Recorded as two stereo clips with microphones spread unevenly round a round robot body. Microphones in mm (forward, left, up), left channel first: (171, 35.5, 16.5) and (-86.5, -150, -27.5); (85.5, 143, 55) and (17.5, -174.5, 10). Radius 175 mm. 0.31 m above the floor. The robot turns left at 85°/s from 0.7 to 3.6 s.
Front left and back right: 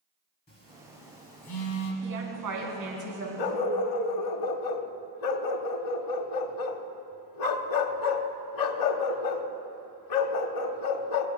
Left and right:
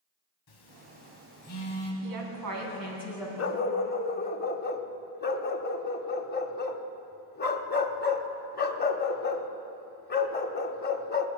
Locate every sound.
0.5 s a phone buzzing: 100° left, 1.8 m; by 1.9 s straight ahead, 1.8 m
2.0 s a woman speaking: 90° right, 3 m; by 3.3 s 165° left, 3 m
3.4 s a dog barking: 30° left, 0.9 m; by 11.3 s 15° left, 0.9 m